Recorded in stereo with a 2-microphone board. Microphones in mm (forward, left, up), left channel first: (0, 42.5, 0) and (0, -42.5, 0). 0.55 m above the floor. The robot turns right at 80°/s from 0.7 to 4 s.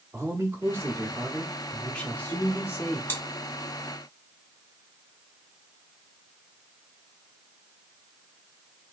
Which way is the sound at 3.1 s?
25° left (ahead or behind).